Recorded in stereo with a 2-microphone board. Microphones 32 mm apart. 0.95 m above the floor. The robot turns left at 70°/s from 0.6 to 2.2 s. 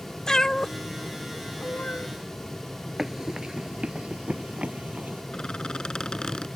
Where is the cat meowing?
15° left (ahead or behind); by 2.1 s 50° left (ahead or behind).